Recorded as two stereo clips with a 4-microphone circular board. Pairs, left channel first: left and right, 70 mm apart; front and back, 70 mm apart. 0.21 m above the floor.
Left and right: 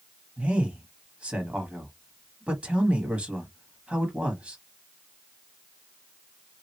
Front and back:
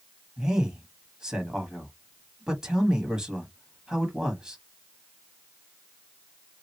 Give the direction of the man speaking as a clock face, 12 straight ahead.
4 o'clock.